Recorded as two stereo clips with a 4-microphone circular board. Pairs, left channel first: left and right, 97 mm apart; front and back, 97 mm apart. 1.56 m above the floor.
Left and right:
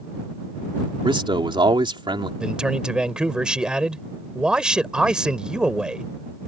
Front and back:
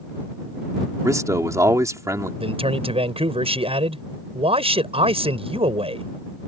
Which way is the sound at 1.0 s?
125° right.